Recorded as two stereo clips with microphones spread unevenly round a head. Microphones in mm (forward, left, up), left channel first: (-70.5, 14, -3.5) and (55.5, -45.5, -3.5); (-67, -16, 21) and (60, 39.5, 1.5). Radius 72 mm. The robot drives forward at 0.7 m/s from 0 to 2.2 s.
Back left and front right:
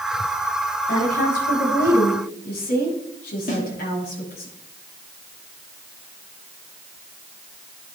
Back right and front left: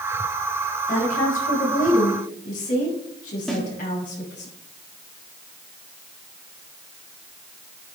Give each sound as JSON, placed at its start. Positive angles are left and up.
{"t": 0.9, "sound": "a woman speaking", "azimuth_deg": 170, "distance_m": 6.0}
{"t": 3.5, "sound": "a snare drum", "azimuth_deg": 115, "distance_m": 3.5}